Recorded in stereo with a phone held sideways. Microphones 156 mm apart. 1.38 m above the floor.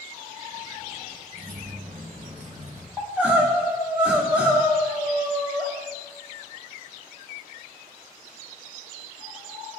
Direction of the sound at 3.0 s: 10° right (ahead or behind).